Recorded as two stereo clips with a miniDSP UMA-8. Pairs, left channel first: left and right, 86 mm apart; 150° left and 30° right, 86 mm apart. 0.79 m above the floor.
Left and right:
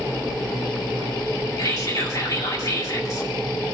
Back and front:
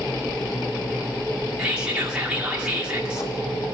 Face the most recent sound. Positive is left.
turn(degrees=50)